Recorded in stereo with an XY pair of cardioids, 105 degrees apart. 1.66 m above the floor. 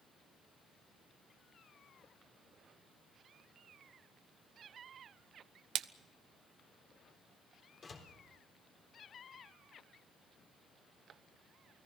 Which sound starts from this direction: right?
A splash, at 5.8 s.